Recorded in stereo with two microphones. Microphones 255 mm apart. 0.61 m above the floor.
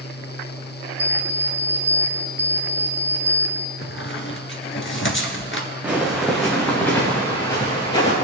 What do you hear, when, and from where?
1.0 s an alarm clock: 75° right (ahead or behind), 0.8 m
3.8 s a squeak: 50° left (ahead or behind), 1.3 m
5.8 s footsteps: 5° right (ahead or behind), 3.5 m; by 8.1 s 20° left (ahead or behind), 5 m